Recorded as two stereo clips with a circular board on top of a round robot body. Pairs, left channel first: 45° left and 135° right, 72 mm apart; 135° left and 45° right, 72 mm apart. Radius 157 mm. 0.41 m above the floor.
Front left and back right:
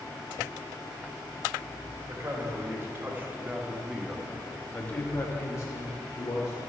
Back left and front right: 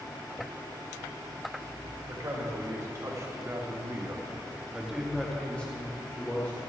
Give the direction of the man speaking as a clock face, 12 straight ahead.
3 o'clock.